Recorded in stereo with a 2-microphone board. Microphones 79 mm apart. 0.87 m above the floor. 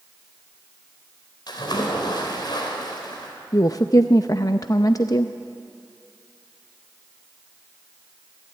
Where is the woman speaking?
50° left (ahead or behind), 0.6 m.